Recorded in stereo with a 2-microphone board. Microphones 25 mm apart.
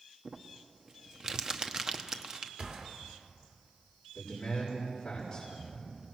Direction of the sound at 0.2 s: 25° right (ahead or behind).